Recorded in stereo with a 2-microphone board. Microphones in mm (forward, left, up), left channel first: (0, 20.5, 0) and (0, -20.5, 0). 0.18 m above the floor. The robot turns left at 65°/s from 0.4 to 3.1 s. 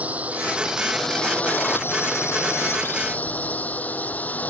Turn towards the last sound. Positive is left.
turn(degrees=35)